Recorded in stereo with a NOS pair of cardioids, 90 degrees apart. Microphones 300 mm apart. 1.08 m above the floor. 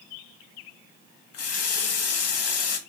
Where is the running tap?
55° left, 1.0 m.